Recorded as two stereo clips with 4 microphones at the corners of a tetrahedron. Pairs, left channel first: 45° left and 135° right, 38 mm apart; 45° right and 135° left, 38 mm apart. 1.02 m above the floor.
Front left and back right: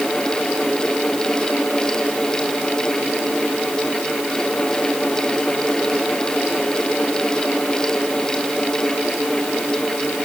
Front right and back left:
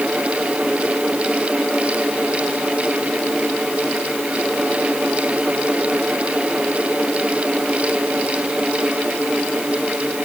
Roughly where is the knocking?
No knocking in this recording.